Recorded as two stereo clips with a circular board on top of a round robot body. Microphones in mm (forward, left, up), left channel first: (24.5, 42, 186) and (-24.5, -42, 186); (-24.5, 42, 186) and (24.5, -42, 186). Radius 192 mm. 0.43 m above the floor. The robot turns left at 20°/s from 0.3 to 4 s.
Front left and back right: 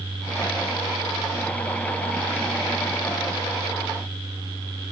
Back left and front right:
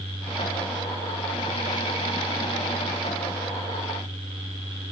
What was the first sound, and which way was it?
Only background noise.